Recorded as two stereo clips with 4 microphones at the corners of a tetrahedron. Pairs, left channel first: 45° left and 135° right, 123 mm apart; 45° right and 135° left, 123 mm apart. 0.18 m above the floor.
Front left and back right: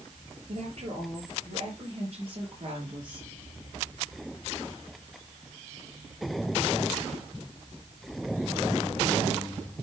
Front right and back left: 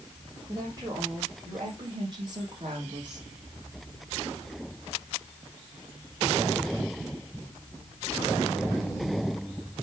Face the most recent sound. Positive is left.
turn(degrees=180)